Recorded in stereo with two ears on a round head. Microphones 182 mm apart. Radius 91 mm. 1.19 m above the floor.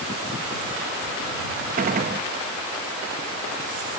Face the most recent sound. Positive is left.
turn(degrees=-40)  # may be behind; listen again after turning